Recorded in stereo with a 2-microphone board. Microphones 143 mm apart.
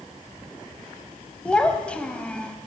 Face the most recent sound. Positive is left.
turn(degrees=5)  # may be behind; listen again after turning